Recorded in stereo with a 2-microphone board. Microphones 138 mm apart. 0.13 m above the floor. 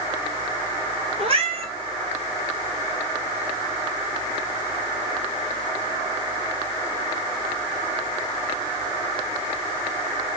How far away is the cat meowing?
About 0.7 m.